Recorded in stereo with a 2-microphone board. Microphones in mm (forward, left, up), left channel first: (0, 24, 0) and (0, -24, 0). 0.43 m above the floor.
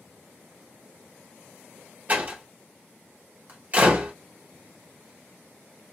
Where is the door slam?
35° right (ahead or behind), 1.3 m.